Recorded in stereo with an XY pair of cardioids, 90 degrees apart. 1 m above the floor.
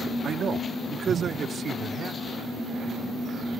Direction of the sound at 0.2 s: 60° right.